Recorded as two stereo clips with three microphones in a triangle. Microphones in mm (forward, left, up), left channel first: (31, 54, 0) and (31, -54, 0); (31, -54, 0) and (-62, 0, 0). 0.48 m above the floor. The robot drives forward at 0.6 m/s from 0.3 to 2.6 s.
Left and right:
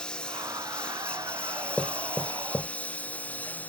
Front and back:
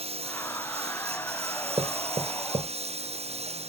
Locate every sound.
0.0 s a lawn mower: 170° left; by 3.7 s 165° left
1.8 s knocking: 155° left; by 2.7 s 165° left